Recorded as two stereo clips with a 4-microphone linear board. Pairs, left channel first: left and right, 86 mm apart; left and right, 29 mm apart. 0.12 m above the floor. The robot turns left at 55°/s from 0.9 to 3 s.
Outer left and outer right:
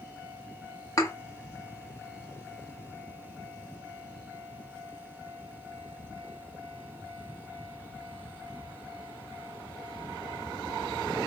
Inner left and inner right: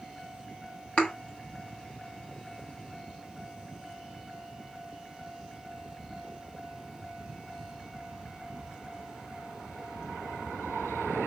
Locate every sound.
1.0 s a thud: 40° left (ahead or behind), 1.3 m; by 1.1 s 35° left (ahead or behind), 1.3 m